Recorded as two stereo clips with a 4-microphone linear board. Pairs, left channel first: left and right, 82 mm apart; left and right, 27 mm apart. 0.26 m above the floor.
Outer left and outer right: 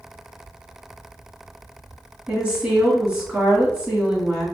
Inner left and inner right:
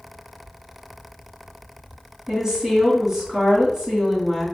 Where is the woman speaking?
10° right (ahead or behind), 1.8 m.